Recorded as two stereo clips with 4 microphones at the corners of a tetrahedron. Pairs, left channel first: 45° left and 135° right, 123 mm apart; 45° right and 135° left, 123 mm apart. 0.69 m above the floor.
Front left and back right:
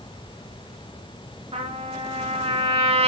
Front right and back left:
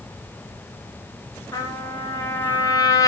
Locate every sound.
1.5 s a trumpet: 105° right, 1.6 m